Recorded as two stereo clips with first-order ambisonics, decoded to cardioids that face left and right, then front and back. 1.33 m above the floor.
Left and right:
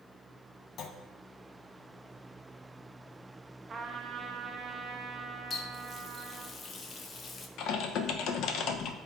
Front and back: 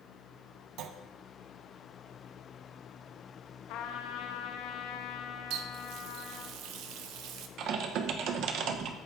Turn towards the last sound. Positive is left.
turn(degrees=135)